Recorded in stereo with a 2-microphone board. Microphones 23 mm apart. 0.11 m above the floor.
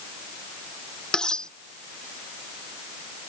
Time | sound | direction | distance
1.1 | cutlery clinking | 35° left (ahead or behind) | ?